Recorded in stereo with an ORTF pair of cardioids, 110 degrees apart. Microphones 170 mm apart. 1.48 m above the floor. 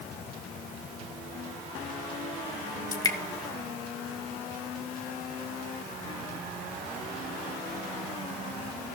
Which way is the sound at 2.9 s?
20° left.